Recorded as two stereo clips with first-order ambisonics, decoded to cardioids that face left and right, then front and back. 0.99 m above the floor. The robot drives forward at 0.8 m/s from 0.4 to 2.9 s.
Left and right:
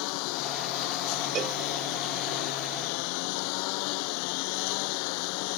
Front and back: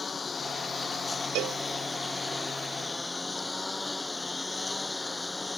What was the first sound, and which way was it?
A lawn mower, 75° left.